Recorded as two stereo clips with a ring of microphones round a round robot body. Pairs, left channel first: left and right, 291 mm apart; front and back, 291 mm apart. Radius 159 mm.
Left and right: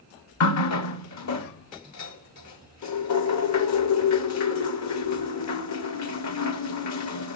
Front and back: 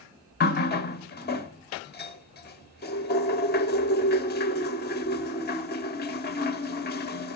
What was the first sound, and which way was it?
A running tap, 60° left.